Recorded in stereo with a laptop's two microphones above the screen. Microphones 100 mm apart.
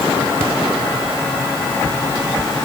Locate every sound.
Only background noise.